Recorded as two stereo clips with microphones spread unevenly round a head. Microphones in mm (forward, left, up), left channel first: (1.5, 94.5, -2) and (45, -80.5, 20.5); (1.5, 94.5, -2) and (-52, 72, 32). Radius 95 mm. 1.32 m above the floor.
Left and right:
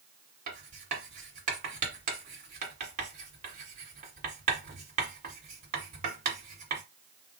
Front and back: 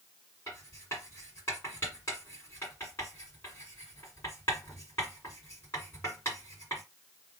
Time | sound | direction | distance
0.5 | writing | 70° right | 1.8 m